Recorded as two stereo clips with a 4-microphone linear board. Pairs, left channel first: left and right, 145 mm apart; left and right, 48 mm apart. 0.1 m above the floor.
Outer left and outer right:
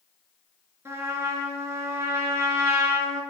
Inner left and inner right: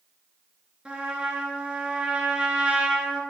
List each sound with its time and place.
0.8 s a trumpet: 20° right (ahead or behind), 1.6 m